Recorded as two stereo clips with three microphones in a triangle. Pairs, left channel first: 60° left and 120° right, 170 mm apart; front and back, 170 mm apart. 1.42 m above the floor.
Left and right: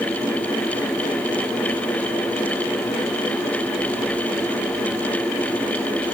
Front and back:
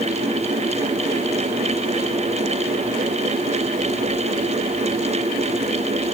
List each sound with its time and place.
Only background noise.